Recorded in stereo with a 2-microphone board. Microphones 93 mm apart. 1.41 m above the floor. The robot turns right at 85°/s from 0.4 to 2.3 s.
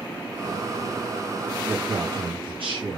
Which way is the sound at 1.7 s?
155° right.